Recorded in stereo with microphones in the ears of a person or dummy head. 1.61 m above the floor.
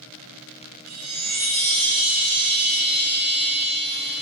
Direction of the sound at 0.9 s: 70° right (ahead or behind).